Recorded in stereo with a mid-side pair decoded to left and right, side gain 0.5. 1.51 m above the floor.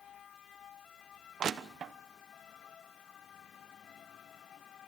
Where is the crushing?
45° right, 1.1 m.